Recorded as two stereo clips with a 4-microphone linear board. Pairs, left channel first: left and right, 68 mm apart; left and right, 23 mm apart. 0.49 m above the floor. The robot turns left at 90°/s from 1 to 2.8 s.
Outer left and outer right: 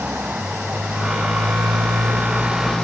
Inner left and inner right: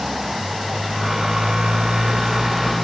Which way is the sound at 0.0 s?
30° right.